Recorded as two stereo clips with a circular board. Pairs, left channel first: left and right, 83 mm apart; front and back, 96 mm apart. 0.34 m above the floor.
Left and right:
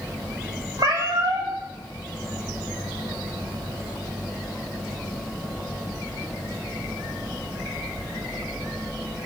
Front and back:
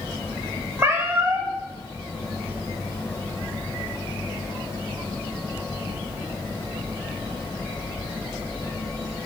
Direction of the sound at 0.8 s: 120° right.